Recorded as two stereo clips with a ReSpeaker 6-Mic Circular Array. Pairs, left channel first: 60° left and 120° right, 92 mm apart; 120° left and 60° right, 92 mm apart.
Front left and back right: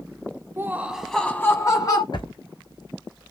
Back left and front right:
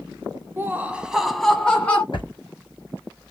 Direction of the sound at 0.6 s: 100° right.